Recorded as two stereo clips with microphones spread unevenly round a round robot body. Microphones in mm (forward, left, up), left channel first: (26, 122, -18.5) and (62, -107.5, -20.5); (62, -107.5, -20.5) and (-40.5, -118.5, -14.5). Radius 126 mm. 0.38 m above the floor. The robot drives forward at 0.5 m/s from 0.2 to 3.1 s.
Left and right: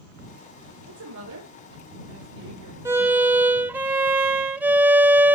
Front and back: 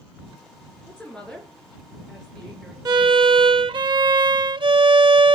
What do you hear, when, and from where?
0.9 s a woman speaking: 75° right, 7 m; by 3.3 s 85° right, 7 m
2.9 s a violin: 155° right, 0.5 m; by 5.4 s 160° right, 0.6 m